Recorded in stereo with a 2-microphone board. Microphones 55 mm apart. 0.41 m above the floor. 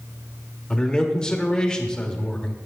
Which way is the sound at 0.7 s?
15° left (ahead or behind).